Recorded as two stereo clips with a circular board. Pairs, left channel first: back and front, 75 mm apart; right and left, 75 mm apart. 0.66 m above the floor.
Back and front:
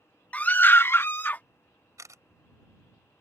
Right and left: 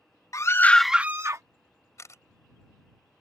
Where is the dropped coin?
No dropped coin in this recording.